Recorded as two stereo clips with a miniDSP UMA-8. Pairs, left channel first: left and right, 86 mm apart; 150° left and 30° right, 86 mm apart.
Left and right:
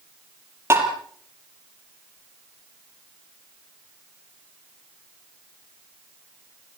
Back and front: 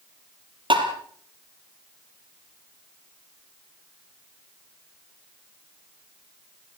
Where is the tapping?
35° right, 4.5 m.